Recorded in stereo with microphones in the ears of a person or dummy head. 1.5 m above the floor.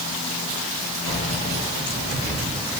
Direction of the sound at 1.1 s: 60° right (ahead or behind).